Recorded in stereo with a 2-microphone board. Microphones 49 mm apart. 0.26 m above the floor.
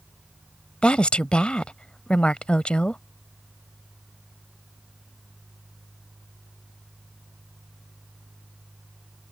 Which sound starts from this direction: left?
A woman speaking, at 0.8 s.